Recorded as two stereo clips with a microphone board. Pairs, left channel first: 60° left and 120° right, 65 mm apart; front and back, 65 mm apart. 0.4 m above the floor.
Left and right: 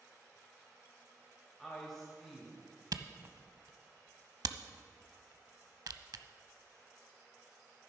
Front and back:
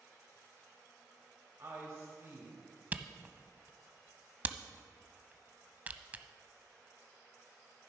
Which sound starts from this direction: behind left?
A woman speaking, at 1.6 s.